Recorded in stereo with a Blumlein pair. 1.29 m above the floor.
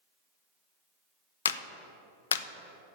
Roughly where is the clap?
Ahead left.